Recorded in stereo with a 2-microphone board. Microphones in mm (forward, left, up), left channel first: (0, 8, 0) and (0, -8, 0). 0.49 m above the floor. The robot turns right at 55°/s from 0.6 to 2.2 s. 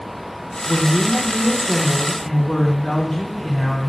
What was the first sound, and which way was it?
A woman speaking, 85° left.